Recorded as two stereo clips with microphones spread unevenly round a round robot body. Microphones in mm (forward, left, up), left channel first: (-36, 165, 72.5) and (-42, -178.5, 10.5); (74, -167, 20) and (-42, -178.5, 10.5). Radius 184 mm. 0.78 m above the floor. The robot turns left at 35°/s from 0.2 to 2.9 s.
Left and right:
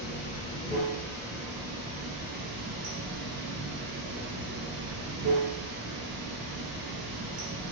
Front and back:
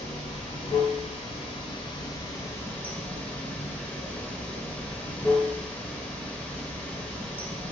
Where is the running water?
25° left, 0.9 m; by 7.7 s 70° right, 0.9 m.